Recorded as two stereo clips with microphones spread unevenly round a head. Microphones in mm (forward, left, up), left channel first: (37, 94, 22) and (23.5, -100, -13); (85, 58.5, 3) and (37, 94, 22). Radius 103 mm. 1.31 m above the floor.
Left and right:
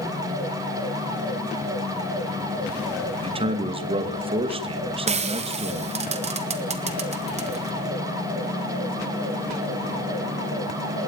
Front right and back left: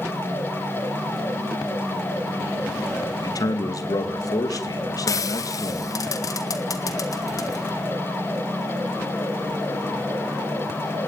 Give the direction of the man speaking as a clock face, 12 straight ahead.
1 o'clock.